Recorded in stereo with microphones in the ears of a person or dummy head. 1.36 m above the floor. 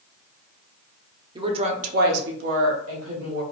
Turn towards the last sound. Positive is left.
turn(degrees=-70)  # may be behind; listen again after turning